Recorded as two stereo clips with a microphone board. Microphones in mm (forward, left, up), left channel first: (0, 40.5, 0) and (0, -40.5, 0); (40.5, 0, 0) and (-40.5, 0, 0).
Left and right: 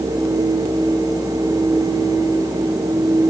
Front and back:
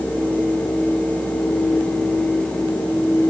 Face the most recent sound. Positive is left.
No sound to turn to.